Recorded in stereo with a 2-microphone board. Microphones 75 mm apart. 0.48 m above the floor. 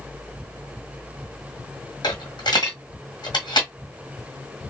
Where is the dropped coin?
70° left (ahead or behind), 1.3 m.